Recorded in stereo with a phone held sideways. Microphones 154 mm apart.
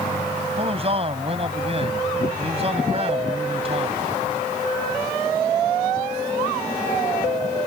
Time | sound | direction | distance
0.6 | a man speaking | 40° right (ahead or behind) | ?